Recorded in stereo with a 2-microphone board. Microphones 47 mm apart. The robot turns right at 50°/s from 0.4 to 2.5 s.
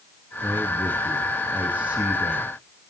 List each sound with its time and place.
0.4 s a man speaking: 110° right, 2.5 m; by 2.5 s 5° right, 2.5 m